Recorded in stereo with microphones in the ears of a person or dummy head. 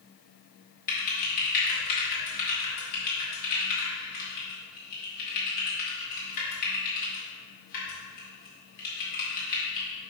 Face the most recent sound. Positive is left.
turn(degrees=45)  # may be behind; listen again after turning